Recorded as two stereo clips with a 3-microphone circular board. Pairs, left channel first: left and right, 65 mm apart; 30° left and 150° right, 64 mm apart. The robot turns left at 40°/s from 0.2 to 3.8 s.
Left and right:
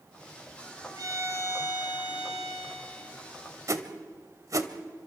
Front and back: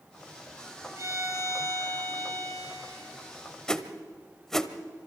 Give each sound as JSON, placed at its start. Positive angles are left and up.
{"t": 0.9, "sound": "a violin", "azimuth_deg": -110, "distance_m": 4.5}
{"t": 3.7, "sound": "a whoosh", "azimuth_deg": -50, "distance_m": 1.0}